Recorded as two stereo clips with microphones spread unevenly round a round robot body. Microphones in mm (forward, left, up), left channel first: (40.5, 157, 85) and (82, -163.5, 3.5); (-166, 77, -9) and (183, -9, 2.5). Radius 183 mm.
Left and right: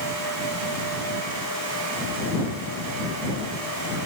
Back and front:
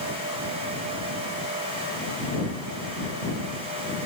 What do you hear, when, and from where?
Only background noise.